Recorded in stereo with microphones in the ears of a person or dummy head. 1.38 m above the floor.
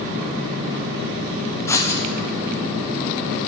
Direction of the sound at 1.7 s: 10° left (ahead or behind).